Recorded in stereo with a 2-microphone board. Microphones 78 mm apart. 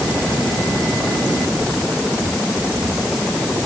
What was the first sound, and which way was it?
Only background noise.